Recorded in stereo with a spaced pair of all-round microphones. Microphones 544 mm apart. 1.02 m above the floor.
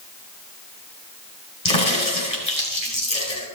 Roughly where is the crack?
Left.